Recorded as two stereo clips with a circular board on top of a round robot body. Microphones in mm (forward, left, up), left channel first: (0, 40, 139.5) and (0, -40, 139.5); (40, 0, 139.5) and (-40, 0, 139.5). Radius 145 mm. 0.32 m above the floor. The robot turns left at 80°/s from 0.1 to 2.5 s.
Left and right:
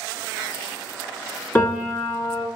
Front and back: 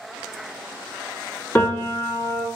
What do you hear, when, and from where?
1.6 s a piano: 45° left, 0.9 m; by 2.5 s 30° right, 0.9 m